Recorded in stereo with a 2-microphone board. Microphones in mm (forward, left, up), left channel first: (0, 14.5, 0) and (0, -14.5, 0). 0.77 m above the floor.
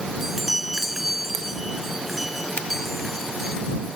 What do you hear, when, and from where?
0.2 s a chime: 5° right (ahead or behind)
2.6 s a finger snap: 45° left (ahead or behind)